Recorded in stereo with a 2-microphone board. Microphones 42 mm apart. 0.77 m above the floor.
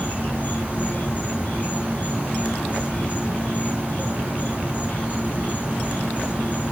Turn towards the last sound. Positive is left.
turn(degrees=35)  # may be behind; listen again after turning